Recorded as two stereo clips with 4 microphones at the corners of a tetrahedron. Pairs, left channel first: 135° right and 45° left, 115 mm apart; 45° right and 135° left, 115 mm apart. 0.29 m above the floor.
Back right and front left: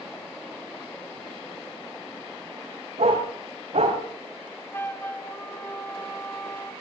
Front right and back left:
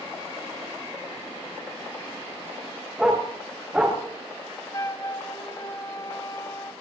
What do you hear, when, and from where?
3.0 s a dog barking: 50° left, 7.5 m; by 4.0 s 60° left, 7.5 m
4.7 s a flute: 75° right, 1.3 m